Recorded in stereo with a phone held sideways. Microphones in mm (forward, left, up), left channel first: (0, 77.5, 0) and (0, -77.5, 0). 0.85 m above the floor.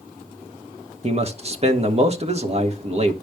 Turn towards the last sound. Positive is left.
turn(degrees=-40)  # may be behind; listen again after turning